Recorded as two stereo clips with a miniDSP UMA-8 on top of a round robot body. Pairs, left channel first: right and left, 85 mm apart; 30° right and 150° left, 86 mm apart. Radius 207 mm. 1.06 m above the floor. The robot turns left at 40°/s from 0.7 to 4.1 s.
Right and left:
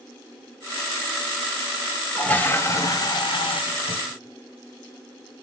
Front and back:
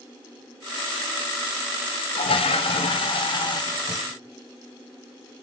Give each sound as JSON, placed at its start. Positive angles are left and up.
{"t": 2.1, "sound": "a toilet flushing", "azimuth_deg": -10, "distance_m": 0.9}